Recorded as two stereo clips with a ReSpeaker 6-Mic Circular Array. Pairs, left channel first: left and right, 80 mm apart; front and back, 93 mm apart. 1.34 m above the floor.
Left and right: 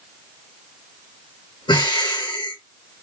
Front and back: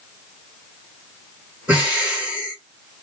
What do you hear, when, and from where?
1.7 s breathing: 105° left, 2 m